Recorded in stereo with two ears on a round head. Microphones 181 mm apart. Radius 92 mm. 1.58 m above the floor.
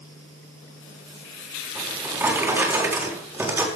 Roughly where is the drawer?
Centre.